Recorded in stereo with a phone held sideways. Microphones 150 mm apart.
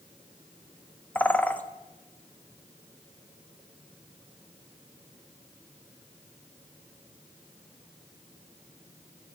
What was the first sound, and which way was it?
A bird, 10° left (ahead or behind).